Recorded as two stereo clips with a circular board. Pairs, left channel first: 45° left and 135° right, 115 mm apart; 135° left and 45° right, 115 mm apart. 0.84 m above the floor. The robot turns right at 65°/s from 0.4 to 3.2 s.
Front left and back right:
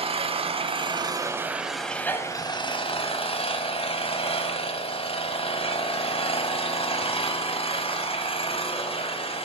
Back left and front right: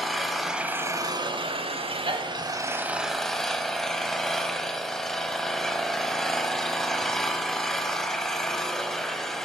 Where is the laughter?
I don't hear laughter.